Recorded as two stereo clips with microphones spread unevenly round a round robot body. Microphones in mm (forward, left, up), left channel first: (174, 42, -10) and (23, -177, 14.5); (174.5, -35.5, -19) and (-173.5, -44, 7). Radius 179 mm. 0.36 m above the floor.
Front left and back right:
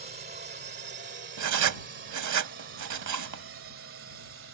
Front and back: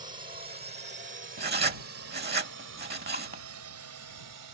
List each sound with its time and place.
0.0 s a drone: 125° right; by 4.5 s 165° right
1.4 s writing: 115° right